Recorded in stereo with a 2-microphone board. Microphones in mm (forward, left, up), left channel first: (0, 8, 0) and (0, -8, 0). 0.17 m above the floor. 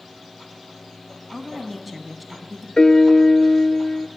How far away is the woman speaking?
About 1.4 m.